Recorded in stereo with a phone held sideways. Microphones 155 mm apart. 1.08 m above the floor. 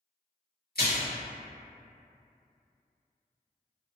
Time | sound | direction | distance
0.8 | a splash | 80° left | 1.7 m